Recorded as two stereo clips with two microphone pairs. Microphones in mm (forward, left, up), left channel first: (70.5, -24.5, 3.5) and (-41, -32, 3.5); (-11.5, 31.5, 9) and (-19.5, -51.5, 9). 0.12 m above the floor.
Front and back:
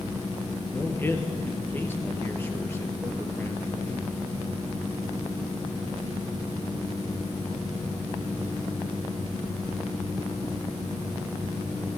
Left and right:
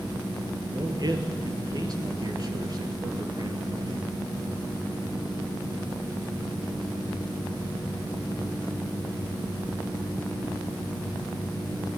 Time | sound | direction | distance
0.7 | a man speaking | 65° right | 2.5 m